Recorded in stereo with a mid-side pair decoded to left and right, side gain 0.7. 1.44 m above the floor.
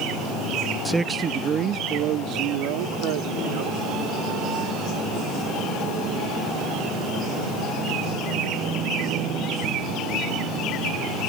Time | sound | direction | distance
0.8 | a man speaking | 10° right | ?